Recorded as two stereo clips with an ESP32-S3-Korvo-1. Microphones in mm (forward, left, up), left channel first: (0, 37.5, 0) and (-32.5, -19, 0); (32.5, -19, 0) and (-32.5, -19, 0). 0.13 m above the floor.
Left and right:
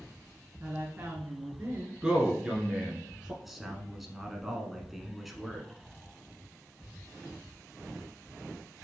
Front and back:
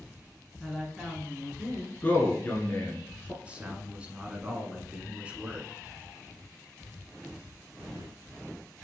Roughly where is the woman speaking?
Right.